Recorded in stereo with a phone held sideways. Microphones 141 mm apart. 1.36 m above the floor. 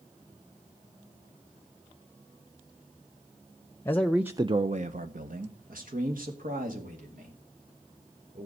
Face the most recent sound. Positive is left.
turn(degrees=-70)  # may be behind; listen again after turning